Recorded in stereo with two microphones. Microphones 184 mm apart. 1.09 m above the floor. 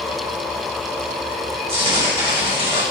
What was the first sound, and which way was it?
Tearing paper, 35° right (ahead or behind).